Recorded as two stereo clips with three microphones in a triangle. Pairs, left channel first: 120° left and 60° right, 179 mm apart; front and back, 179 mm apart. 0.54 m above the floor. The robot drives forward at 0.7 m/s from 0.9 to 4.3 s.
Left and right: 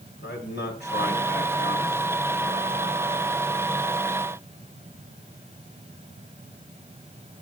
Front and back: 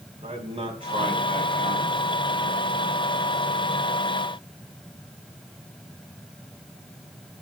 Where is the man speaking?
120° left, 3.5 m; by 2.0 s 130° left, 4 m.